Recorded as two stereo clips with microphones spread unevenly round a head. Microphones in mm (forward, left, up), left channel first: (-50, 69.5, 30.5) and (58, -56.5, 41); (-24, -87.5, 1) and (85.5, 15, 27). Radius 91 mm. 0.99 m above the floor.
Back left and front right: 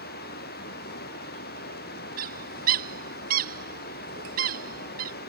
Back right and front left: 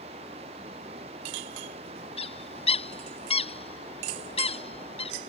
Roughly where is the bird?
Right.